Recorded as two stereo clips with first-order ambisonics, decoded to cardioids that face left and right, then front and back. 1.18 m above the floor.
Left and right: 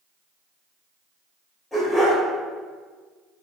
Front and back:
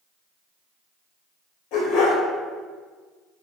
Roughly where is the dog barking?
Ahead.